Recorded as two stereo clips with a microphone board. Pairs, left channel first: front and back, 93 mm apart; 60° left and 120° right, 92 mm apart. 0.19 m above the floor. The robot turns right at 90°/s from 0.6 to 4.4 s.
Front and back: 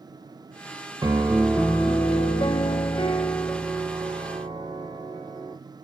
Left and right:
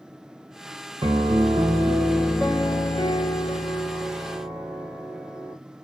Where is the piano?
135° right, 0.6 m; by 5.6 s 170° left, 0.6 m.